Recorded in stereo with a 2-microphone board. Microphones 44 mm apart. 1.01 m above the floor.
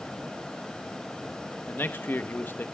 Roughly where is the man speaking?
Left.